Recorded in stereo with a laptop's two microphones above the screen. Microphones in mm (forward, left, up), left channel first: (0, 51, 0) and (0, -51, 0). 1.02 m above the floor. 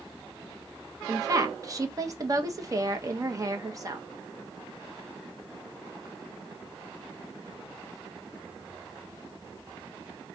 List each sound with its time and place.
1.1 s a woman speaking: 35° right (ahead or behind), 0.9 m